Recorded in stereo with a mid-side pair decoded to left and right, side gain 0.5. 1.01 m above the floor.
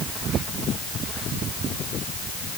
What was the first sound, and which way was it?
Only background noise.